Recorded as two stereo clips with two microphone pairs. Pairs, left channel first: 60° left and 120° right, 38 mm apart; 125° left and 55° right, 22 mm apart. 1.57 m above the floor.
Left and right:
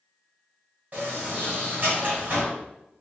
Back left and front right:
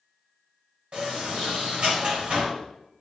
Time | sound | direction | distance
0.9 | a sliding door | 75° right | 2.5 m